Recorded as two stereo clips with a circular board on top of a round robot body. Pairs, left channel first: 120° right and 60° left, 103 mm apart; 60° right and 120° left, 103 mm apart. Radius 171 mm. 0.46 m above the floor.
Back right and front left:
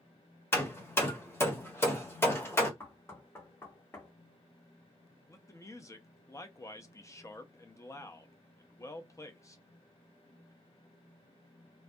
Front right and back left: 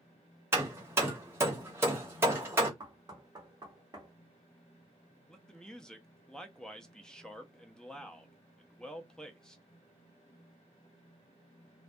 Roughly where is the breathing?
I don't hear breathing.